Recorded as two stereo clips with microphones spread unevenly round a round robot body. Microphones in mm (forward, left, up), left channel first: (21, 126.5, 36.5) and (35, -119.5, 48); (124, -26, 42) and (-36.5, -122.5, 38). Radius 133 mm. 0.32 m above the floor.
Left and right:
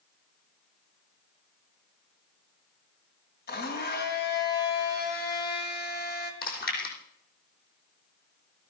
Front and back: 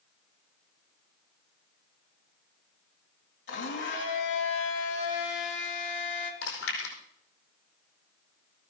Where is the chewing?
40° left, 4.5 m.